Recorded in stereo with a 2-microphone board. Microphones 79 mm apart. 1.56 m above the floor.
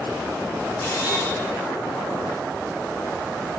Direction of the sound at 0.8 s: 40° left (ahead or behind).